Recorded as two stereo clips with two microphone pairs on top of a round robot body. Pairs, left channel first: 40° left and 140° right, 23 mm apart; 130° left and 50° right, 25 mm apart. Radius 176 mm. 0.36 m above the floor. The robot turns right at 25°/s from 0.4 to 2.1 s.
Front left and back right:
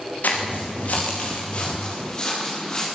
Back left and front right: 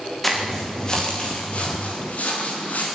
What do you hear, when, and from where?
0.2 s footsteps: 45° left, 9 m; by 2.9 s 105° left, 10 m